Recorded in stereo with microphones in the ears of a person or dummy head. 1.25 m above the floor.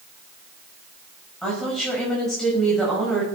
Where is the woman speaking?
5° left (ahead or behind), 6 m.